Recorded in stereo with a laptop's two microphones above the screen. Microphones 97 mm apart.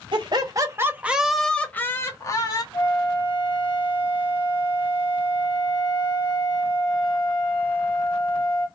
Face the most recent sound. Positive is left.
turn(degrees=65)  # may be behind; listen again after turning